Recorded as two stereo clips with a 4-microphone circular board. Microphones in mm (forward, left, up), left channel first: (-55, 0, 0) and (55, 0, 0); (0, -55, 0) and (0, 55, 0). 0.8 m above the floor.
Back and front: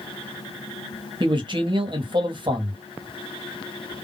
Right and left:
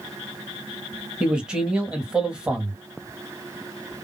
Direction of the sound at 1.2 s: 10° left.